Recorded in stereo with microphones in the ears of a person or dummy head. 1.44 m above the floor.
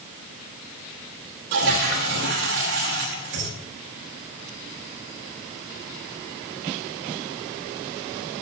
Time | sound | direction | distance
1.5 | a toilet flushing | 50° right (ahead or behind) | 1.1 m